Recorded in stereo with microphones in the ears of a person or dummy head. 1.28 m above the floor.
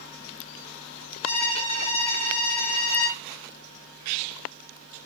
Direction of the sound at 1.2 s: 35° left (ahead or behind).